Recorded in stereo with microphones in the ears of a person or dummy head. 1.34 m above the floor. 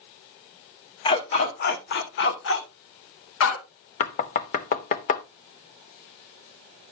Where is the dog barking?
30° left (ahead or behind), 1.0 m; by 3.9 s 75° left (ahead or behind), 2.5 m.